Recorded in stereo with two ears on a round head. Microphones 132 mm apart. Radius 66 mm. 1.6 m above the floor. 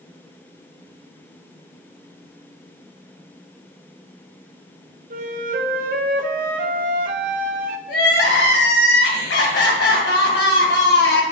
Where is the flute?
60° right (ahead or behind), 0.7 m.